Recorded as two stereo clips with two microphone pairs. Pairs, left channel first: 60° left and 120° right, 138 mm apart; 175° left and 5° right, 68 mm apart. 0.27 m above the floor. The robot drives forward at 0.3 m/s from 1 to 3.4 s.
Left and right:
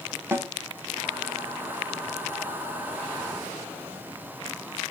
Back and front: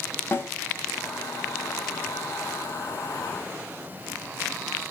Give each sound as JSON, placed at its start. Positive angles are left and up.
{"t": 0.3, "sound": "a snare drum", "azimuth_deg": 180, "distance_m": 0.9}